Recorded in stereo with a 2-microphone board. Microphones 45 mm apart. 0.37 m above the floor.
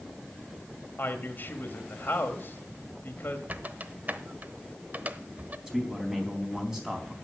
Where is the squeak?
40° right (ahead or behind), 0.9 m.